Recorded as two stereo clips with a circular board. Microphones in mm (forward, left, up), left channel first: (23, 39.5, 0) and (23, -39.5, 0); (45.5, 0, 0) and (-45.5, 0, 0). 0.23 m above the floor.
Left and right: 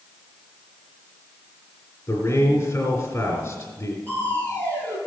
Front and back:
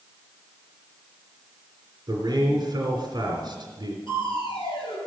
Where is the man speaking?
140° left, 2.5 m.